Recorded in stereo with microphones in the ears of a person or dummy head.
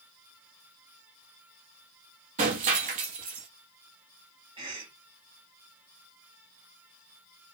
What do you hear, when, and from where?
2.4 s breaking glass: 35° right (ahead or behind), 1.2 m
4.6 s a cough: 25° right (ahead or behind), 1.1 m